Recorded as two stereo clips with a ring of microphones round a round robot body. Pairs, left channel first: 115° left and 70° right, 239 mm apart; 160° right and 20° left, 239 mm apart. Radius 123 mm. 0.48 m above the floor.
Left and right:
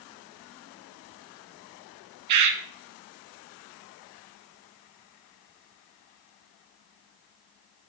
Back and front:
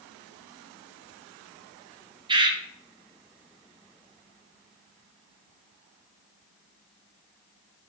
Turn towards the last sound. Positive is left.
turn(degrees=-50)